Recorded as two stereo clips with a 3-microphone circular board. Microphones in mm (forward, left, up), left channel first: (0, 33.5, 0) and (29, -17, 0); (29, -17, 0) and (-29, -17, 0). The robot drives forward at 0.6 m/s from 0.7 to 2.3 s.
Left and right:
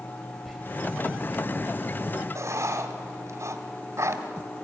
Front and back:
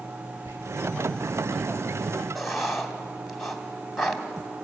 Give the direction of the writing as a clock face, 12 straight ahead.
3 o'clock.